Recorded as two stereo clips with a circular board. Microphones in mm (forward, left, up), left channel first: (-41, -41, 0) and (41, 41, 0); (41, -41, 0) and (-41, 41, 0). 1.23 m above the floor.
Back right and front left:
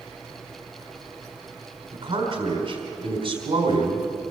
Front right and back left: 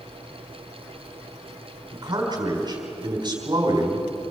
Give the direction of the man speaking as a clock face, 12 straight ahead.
9 o'clock.